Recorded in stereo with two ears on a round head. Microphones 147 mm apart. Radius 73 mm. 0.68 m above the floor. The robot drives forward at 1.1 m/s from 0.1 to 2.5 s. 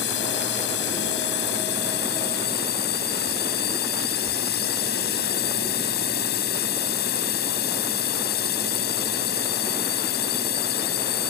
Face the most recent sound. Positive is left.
turn(degrees=65)  # may be behind; listen again after turning